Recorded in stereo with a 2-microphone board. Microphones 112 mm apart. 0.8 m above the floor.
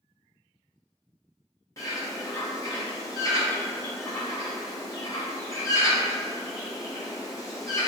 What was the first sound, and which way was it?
A bird, 30° left (ahead or behind).